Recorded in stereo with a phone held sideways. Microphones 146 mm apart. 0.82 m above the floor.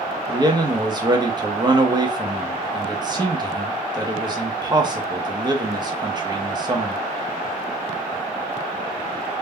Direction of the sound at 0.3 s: 30° right (ahead or behind).